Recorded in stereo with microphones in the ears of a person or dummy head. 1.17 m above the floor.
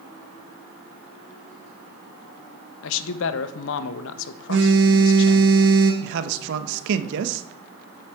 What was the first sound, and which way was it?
A man speaking, 75° left (ahead or behind).